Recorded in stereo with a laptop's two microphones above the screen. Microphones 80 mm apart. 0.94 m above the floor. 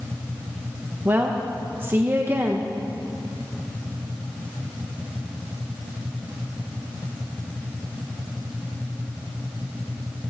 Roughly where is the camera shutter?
I don't hear a camera shutter.